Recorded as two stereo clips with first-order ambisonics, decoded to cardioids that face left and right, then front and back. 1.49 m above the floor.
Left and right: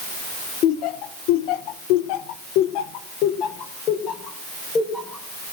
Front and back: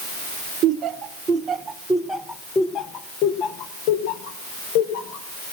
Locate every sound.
0.6 s laughter: 125° left, 1.3 m; by 5.3 s 15° left, 1.7 m